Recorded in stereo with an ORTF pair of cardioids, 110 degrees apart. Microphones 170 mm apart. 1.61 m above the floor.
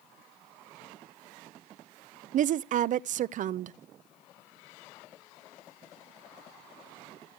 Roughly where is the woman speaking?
Ahead right.